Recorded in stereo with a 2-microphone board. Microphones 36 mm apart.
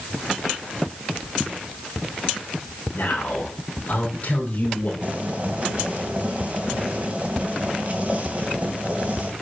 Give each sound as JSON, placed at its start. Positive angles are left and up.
{"t": 2.9, "sound": "a man speaking", "side_deg": 50, "distance_m": 4.0}
{"t": 5.0, "sound": "boiling", "side_deg": -35, "distance_m": 2.5}